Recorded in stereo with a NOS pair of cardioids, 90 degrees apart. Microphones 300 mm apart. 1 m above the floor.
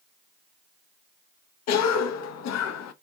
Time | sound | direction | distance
1.7 | a cough | 65° left | 0.6 m